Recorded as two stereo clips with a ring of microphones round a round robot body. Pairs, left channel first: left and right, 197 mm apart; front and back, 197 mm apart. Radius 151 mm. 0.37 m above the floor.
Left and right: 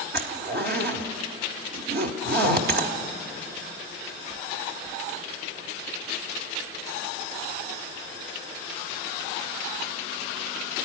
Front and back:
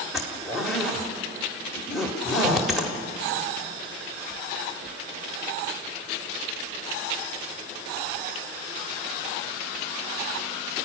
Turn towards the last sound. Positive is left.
turn(degrees=-90)